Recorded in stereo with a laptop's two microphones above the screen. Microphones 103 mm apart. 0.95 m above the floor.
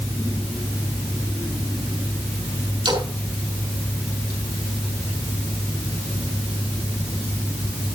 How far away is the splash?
About 5 m.